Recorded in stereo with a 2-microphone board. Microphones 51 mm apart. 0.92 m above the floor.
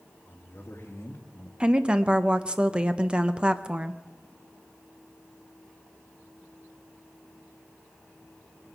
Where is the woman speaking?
20° right (ahead or behind), 0.7 m.